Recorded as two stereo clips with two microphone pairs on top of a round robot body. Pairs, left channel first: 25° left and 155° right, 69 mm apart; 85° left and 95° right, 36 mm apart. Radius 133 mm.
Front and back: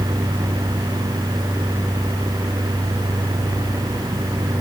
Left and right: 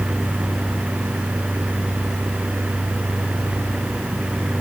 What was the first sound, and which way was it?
Only background noise.